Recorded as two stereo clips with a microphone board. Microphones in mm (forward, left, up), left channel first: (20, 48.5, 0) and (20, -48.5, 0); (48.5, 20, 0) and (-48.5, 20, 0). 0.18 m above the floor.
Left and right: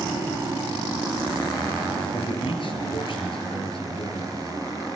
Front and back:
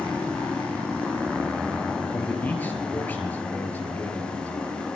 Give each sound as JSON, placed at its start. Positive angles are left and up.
{"t": 2.1, "sound": "a man speaking", "azimuth_deg": 70, "distance_m": 3.5}